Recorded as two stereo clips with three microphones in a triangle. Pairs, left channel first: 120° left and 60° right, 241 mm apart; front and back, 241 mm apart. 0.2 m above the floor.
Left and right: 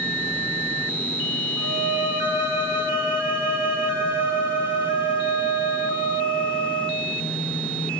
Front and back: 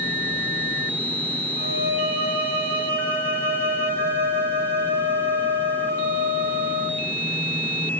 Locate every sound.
1.6 s a violin: 135° right, 4.5 m